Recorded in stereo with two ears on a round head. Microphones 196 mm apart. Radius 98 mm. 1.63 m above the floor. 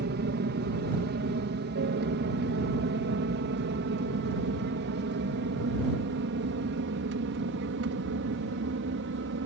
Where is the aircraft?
50° right (ahead or behind); by 9.5 s 60° right (ahead or behind).